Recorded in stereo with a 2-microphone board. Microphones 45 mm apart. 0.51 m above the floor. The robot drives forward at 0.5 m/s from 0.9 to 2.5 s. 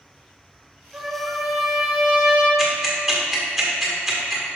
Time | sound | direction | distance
0.9 | a trumpet | 25° right (ahead or behind) | 1.8 m
2.6 | ticking | 5° right (ahead or behind) | 1.7 m